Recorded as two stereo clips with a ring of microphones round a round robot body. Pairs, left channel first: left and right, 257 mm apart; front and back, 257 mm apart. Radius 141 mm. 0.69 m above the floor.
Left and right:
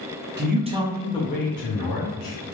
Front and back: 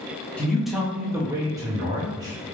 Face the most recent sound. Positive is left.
turn(degrees=105)